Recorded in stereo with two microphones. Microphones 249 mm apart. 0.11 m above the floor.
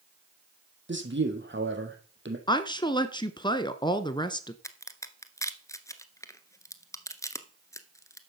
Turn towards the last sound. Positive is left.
turn(degrees=10)  # may be behind; listen again after turning